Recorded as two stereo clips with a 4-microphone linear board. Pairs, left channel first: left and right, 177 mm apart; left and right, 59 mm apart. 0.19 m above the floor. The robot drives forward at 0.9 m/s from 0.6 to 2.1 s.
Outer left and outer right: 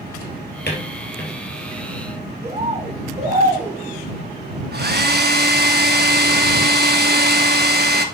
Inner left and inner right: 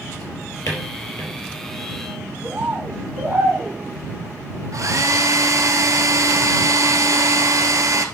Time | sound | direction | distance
0.2 | a drawer | 75° left (ahead or behind) | 2.5 m
2.4 | a bird | 35° right (ahead or behind) | 2.0 m
4.7 | a hair dryer | 65° right (ahead or behind) | 1.0 m